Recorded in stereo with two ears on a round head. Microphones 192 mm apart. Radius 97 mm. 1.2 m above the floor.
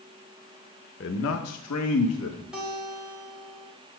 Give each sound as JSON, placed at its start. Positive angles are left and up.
{"t": 1.0, "sound": "a man speaking", "side_deg": 50, "distance_m": 0.8}
{"t": 2.5, "sound": "a guitar", "side_deg": -5, "distance_m": 2.5}